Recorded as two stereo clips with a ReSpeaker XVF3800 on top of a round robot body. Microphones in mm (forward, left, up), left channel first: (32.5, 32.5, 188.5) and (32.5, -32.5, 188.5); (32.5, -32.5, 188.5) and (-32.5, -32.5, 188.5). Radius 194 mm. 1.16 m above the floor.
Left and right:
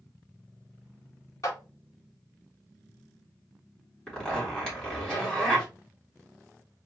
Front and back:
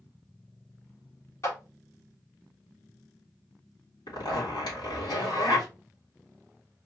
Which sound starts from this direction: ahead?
A zipper, at 4.1 s.